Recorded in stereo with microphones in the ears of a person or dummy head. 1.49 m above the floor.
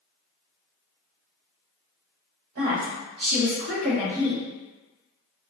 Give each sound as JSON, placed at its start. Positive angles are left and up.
{"t": 2.5, "sound": "a woman speaking", "side_deg": -75, "distance_m": 1.5}